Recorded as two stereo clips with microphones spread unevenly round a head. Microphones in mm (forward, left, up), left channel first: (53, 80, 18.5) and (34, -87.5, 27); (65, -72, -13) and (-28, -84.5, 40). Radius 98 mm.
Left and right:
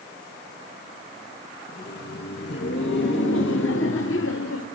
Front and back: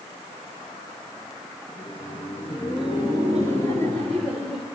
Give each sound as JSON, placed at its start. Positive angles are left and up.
{"t": 1.7, "sound": "laughter", "azimuth_deg": 55, "distance_m": 1.6}